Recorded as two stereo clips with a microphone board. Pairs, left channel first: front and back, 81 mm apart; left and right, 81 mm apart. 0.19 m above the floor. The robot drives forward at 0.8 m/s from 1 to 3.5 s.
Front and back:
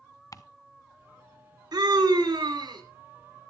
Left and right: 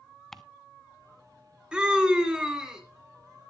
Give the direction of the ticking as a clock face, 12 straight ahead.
12 o'clock.